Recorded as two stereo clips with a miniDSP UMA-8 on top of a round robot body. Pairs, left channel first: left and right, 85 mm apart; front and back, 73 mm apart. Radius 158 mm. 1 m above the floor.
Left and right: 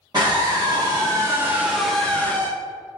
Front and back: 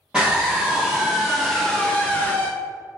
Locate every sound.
0.1 s a scream: 105° right, 1.2 m; by 2.5 s 50° left, 0.8 m